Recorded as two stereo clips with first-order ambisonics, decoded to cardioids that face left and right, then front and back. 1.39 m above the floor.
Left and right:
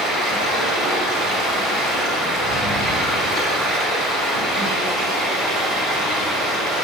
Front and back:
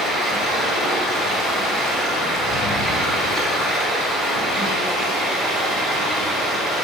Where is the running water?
100° right, 2 m.